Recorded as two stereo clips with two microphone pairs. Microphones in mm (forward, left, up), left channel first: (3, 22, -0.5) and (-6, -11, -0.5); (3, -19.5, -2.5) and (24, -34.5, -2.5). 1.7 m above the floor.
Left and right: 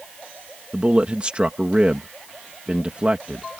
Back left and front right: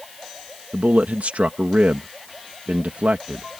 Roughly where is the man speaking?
Ahead right.